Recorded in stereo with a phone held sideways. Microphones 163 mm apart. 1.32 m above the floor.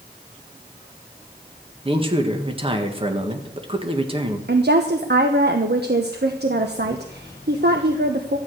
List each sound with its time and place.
1.9 s a man speaking: 30° right (ahead or behind), 1.6 m
4.5 s a woman speaking: 75° right (ahead or behind), 1.0 m